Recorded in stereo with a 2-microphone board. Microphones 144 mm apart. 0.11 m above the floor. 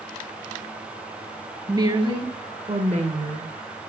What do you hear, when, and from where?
1.7 s a woman speaking: 25° right (ahead or behind), 1.8 m; by 3.5 s 55° right (ahead or behind), 2.5 m